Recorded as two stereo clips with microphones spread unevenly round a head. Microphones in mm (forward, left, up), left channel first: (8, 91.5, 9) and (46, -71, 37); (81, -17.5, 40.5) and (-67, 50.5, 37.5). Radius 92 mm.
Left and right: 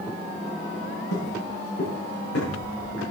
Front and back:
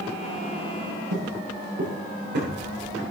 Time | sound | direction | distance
1.1 | footsteps | 135° left | 9.5 m